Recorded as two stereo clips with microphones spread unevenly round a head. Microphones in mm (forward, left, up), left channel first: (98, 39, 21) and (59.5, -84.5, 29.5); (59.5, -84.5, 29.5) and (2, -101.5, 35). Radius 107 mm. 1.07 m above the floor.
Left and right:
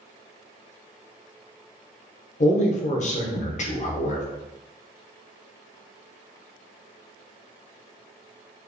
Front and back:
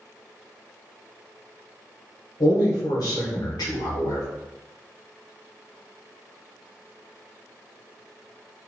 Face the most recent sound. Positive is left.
turn(degrees=40)